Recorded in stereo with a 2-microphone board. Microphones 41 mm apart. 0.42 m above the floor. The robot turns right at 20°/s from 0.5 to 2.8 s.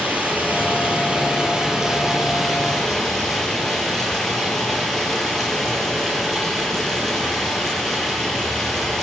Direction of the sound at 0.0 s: 40° right.